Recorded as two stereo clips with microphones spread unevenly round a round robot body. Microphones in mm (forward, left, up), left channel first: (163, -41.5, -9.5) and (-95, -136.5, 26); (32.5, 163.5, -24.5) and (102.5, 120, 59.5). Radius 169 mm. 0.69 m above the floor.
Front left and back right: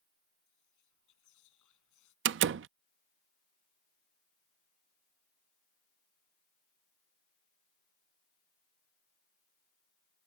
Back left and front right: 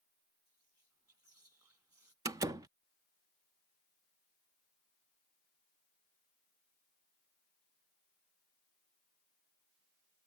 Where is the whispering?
20° left.